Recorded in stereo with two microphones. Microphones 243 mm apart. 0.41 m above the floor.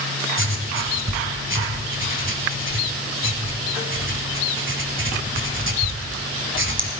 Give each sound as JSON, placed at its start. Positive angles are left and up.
{"t": 0.4, "sound": "writing", "side_deg": -55, "distance_m": 1.9}